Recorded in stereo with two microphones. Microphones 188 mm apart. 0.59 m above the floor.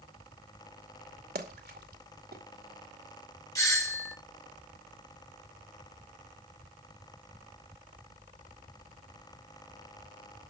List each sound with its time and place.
1.4 s a splash: 60° right (ahead or behind), 2 m
3.5 s a doorbell: 20° left (ahead or behind), 1.8 m